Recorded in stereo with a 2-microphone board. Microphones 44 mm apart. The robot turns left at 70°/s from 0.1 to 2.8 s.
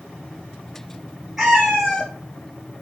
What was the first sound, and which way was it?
A cat meowing, 170° right.